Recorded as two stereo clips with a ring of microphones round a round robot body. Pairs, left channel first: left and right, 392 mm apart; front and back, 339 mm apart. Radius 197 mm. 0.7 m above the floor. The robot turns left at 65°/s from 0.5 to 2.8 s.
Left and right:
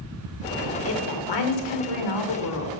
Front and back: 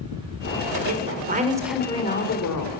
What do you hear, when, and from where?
0.8 s a woman speaking: 145° left, 2.5 m; by 2.7 s 25° left, 2.5 m